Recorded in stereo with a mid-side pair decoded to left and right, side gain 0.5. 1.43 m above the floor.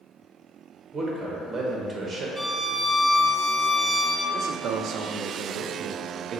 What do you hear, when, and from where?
0.9 s a man speaking: 30° right, 1.3 m
2.4 s a violin: 5° right, 0.5 m
4.3 s a man speaking: 60° right, 0.5 m